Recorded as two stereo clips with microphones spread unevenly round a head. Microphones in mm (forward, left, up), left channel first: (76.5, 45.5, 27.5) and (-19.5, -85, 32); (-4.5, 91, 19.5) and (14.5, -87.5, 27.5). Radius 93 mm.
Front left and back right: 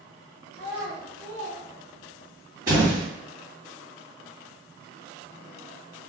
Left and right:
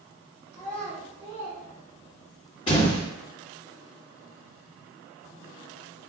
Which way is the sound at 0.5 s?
30° right.